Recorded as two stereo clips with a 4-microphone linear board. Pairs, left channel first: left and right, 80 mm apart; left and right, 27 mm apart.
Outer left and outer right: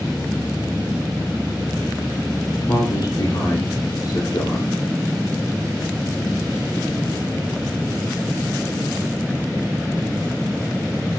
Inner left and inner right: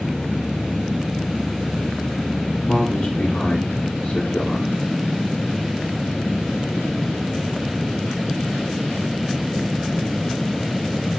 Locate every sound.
2.7 s a man speaking: 75° left (ahead or behind), 2.5 m